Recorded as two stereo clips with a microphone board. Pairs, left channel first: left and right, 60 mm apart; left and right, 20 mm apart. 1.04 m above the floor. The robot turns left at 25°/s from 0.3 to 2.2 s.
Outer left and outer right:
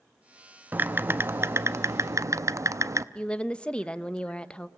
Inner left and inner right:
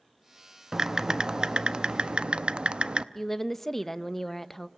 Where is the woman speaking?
20° left (ahead or behind), 0.7 m.